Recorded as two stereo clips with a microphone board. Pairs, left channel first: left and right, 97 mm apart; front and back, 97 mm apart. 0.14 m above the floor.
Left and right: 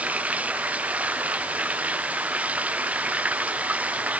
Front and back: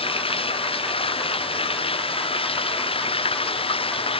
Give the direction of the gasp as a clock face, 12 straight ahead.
No gasp in this recording.